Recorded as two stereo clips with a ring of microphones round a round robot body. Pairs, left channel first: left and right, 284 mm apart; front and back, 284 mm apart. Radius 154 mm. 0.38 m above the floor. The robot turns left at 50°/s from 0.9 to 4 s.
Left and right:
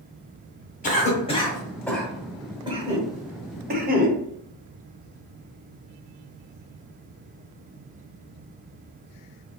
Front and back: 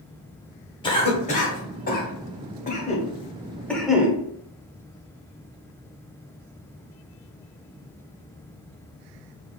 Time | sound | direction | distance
0.8 | a cough | 60° left | 0.8 m